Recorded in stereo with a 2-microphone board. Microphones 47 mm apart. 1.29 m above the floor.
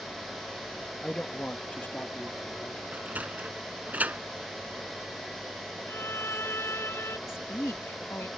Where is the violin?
60° left (ahead or behind).